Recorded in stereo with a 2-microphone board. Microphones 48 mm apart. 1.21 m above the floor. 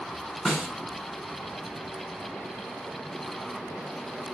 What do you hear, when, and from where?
0.5 s a snare drum: centre (ahead or behind), 2.5 m